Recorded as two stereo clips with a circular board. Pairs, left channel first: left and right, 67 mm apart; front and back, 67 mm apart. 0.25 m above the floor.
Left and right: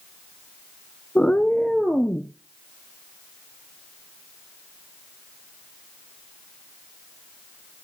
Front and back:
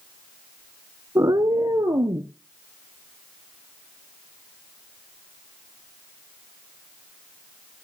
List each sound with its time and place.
1.1 s a cat meowing: 155° left, 0.6 m; by 2.3 s 175° left, 1.9 m